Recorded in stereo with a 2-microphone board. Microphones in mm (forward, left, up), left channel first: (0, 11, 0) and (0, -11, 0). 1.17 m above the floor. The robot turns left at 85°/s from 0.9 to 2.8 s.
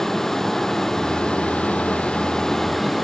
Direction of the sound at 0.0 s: 160° left.